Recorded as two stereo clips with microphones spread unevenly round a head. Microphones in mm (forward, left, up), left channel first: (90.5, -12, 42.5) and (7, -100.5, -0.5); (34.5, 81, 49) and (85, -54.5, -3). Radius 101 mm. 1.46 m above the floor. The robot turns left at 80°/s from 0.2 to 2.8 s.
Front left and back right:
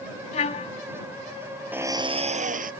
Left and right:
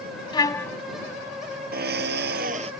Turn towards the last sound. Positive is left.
turn(degrees=-140)